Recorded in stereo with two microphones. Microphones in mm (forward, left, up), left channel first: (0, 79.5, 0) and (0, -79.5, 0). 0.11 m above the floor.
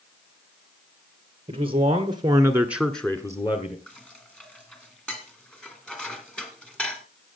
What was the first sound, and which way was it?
A man speaking, 35° right (ahead or behind).